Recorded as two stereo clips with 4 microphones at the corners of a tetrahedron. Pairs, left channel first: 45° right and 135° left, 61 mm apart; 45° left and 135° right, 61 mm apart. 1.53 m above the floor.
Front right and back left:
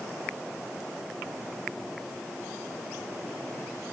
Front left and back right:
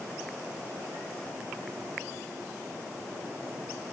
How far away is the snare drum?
I don't hear a snare drum.